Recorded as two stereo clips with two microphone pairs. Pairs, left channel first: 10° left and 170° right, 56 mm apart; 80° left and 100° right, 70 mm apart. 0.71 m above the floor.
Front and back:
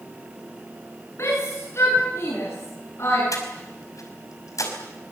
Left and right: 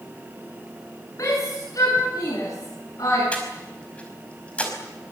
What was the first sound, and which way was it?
A shout, 45° left.